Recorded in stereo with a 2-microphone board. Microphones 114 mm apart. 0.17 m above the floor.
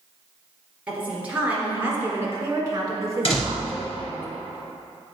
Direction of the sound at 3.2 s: 55° left (ahead or behind).